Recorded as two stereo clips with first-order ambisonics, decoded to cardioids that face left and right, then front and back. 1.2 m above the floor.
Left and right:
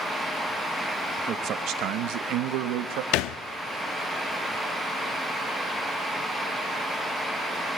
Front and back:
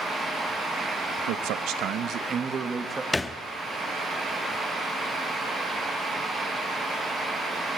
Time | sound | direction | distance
1.3 | a man speaking | 150° right | 1.3 m
3.1 | a thud | 80° left | 0.9 m